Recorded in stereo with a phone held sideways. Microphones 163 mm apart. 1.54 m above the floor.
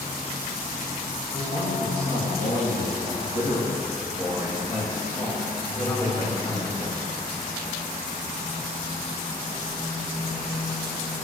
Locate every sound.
1.3 s a man speaking: 85° left, 3 m; by 7.0 s 25° left (ahead or behind), 3 m